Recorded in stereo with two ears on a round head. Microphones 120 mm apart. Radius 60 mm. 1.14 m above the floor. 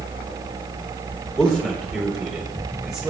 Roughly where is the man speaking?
Centre.